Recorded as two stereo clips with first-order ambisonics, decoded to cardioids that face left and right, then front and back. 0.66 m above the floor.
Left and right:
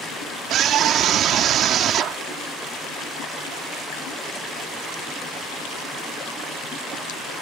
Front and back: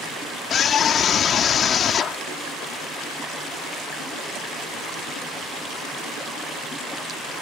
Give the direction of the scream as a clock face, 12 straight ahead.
2 o'clock.